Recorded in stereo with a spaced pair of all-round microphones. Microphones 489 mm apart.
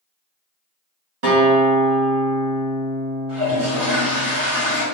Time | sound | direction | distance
1.2 | a guitar | 70° right (ahead or behind) | 1.7 m
3.3 | a toilet flushing | 40° right (ahead or behind) | 2.0 m